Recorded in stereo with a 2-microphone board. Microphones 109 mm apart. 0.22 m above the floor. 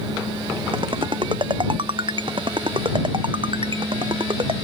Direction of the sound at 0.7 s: 50° right (ahead or behind).